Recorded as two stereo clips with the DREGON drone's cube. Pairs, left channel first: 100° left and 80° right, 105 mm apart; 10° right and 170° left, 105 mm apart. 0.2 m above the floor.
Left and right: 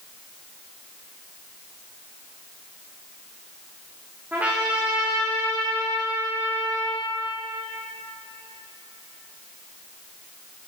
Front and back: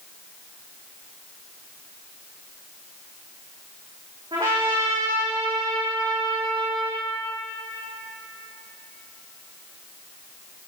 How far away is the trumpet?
About 3.5 m.